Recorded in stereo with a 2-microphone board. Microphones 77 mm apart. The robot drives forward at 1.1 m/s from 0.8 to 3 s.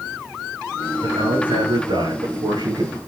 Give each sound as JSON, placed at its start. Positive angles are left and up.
{"t": 1.0, "sound": "a man speaking", "side_deg": -65, "distance_m": 8.0}